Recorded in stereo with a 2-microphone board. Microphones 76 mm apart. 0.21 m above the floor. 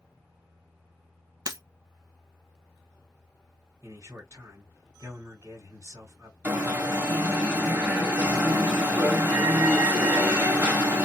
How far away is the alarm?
About 1.8 m.